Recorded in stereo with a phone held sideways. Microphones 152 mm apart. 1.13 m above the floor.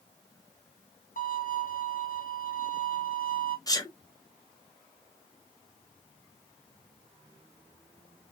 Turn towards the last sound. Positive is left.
turn(degrees=25)  # may be behind; listen again after turning